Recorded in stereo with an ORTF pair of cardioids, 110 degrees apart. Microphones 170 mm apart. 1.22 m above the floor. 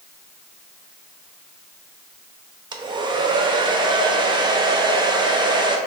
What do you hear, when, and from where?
2.7 s a hair dryer: 25° right, 0.7 m